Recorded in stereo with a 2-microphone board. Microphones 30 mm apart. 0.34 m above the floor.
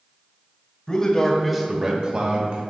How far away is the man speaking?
About 1.4 m.